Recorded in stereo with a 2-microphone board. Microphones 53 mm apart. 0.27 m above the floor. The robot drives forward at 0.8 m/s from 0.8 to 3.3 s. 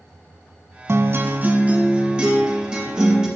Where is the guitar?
50° right (ahead or behind), 0.6 m; by 3.3 s 10° right (ahead or behind), 2.5 m.